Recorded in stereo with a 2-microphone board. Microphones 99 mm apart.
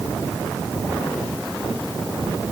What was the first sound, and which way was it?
Only background noise.